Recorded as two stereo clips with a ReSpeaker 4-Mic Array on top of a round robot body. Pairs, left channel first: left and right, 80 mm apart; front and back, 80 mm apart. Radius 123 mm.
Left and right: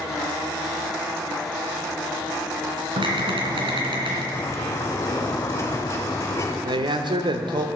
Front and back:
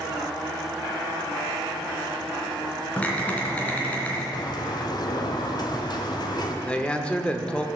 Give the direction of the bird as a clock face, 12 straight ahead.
11 o'clock.